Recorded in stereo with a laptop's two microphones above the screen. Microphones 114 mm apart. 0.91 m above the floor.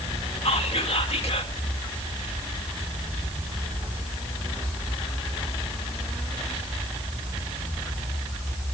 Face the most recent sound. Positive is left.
turn(degrees=60)  # may be behind; listen again after turning